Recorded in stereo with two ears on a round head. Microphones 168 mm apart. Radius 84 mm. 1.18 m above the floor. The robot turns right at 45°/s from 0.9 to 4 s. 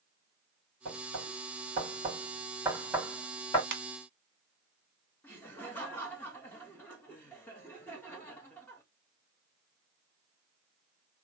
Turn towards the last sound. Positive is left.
turn(degrees=10)  # may be behind; listen again after turning